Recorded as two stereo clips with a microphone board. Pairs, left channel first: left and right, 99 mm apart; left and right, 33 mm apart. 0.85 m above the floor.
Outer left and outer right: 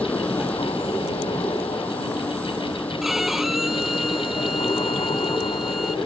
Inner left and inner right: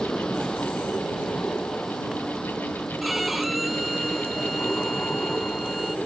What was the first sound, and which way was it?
A vehicle, 15° left (ahead or behind).